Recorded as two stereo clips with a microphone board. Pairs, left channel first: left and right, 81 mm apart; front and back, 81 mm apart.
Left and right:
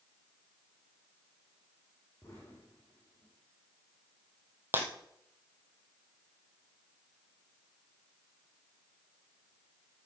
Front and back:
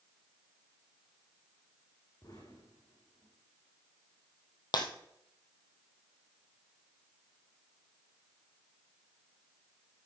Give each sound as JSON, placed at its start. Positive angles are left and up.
{"t": 2.2, "sound": "an explosion", "azimuth_deg": 35, "distance_m": 5.5}
{"t": 4.7, "sound": "breaking glass", "azimuth_deg": -30, "distance_m": 1.8}